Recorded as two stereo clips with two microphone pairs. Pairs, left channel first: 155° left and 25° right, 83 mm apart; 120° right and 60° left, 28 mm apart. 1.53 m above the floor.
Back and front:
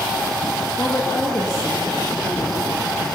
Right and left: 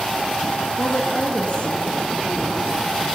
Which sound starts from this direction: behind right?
A woman speaking, at 0.8 s.